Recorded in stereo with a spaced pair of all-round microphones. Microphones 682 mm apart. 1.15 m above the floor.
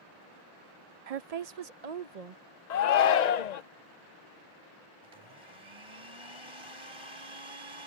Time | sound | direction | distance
1.1 | a woman speaking | 60° right (ahead or behind) | ?
2.7 | a shout | 75° left (ahead or behind) | ?
5.0 | a blender | 45° right (ahead or behind) | ?